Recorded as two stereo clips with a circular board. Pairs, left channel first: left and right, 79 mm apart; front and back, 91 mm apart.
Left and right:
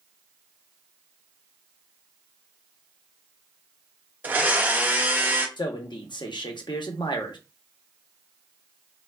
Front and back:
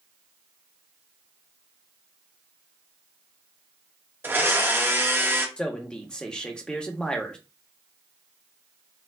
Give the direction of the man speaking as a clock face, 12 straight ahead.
9 o'clock.